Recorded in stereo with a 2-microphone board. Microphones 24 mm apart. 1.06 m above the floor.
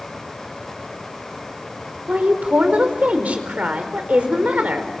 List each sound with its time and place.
2.1 s a woman speaking: 80° right, 4.5 m